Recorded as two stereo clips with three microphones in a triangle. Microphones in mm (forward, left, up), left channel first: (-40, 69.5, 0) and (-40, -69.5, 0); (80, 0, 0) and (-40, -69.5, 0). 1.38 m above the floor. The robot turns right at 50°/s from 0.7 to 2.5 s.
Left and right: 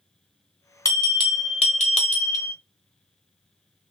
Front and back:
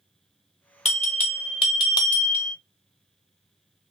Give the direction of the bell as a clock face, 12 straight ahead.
11 o'clock.